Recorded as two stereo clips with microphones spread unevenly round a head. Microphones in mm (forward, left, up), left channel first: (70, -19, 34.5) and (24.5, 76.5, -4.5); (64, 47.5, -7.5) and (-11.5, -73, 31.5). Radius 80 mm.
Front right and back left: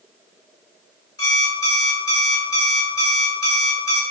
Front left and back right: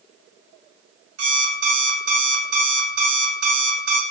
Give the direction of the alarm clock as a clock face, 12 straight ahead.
4 o'clock.